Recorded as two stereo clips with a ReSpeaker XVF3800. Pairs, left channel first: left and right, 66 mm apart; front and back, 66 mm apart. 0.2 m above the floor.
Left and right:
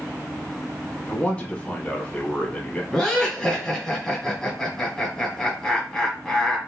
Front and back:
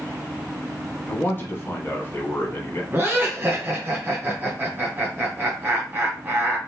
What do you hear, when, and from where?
1.1 s a man speaking: 30° left, 1.3 m
2.9 s laughter: 165° left, 1.7 m